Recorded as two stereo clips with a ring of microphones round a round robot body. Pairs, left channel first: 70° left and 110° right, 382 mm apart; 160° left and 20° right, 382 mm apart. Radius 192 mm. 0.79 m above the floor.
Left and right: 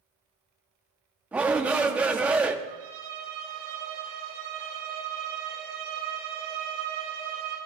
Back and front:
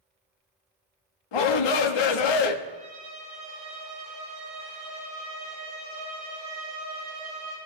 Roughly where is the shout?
Behind.